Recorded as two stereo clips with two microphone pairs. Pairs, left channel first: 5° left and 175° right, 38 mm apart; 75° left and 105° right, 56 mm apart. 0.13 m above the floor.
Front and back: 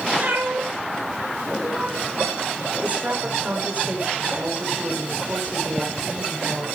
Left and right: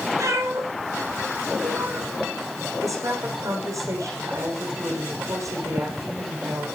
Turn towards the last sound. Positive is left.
turn(degrees=-125)